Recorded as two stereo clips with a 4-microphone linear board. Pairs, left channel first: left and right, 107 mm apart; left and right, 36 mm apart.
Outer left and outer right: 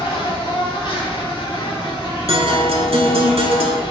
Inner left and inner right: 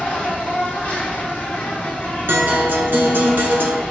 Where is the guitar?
70° right (ahead or behind), 1.0 m.